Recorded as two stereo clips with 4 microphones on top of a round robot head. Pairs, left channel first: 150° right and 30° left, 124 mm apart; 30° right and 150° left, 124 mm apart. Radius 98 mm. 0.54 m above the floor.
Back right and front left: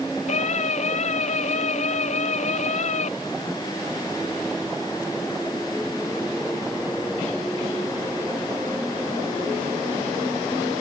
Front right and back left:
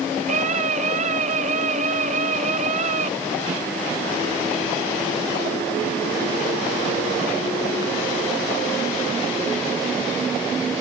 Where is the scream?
Straight behind.